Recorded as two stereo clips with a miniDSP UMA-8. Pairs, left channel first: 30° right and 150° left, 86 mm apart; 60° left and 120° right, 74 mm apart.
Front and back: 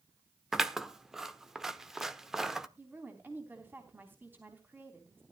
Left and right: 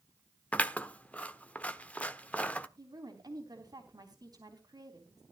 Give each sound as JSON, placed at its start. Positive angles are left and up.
{"t": 0.5, "sound": "scissors", "azimuth_deg": 75, "distance_m": 0.9}
{"t": 2.8, "sound": "a woman speaking", "azimuth_deg": -145, "distance_m": 3.5}